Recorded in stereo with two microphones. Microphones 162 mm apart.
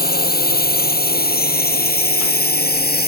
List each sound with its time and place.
0.0 s a drone: 70° left (ahead or behind); by 3.1 s 75° left (ahead or behind)